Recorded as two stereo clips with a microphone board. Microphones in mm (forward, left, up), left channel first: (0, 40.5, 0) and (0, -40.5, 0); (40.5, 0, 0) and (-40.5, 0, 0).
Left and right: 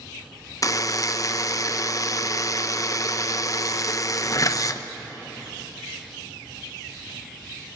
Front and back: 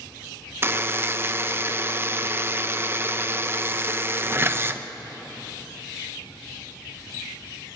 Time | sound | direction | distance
0.6 | a buzzer | 125° left | 0.8 m